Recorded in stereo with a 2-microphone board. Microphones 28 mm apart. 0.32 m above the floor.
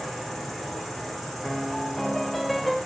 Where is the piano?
5° left (ahead or behind), 0.9 m.